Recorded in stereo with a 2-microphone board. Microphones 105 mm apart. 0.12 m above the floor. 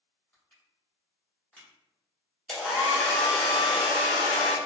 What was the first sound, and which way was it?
Crushing, 20° left (ahead or behind).